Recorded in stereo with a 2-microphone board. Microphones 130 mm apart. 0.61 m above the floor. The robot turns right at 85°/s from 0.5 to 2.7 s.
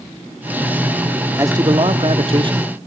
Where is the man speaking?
150° right, 1.1 m; by 2.7 s 40° right, 1.1 m.